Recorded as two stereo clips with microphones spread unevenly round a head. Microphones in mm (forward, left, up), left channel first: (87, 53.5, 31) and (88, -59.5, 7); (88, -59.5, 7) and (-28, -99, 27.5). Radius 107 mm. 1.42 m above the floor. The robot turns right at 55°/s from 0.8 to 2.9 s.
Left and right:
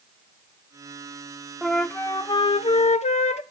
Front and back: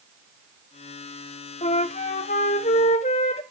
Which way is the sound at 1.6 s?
5° right.